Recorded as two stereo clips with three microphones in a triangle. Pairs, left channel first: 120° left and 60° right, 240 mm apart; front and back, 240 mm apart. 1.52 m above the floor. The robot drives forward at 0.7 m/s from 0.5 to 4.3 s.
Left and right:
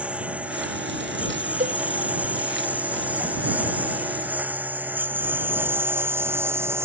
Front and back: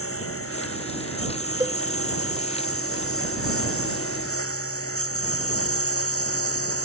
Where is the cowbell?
105° right; by 1.8 s 110° right.